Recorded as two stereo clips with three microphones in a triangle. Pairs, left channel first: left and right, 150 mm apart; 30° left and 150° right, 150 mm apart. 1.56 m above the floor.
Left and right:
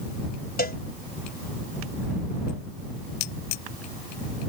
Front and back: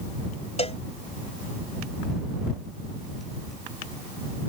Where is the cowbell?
75° left.